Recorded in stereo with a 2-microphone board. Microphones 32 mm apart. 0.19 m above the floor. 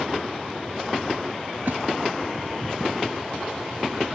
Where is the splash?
75° right (ahead or behind), 0.7 m.